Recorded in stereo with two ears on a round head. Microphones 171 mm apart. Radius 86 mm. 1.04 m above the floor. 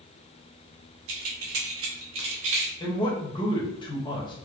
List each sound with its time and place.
1.1 s keys jangling: 70° right (ahead or behind), 1.3 m
2.8 s a man speaking: 25° left (ahead or behind), 1.2 m